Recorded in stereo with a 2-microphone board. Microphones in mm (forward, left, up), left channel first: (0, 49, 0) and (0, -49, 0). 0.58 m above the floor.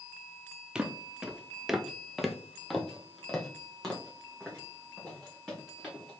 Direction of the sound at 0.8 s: 10° right (ahead or behind).